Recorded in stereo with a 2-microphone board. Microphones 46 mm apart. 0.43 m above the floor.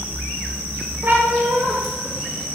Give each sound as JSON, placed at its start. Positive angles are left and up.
{"t": 1.0, "sound": "a cat meowing", "side_deg": -45, "distance_m": 1.0}